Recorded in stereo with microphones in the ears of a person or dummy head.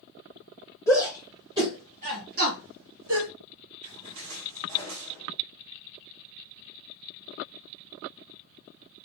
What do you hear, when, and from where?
0.9 s a shout: centre (ahead or behind), 1.7 m; by 3.3 s 75° right (ahead or behind), 2 m
3.8 s a splash: 70° right (ahead or behind), 2.5 m